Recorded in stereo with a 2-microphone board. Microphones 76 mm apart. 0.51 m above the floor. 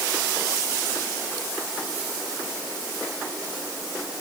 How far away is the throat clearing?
No throat clearing in this recording.